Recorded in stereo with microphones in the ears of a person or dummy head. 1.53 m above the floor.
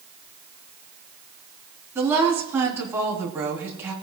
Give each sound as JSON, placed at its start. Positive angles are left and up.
{"t": 1.9, "sound": "a woman speaking", "side_deg": -10, "distance_m": 3.5}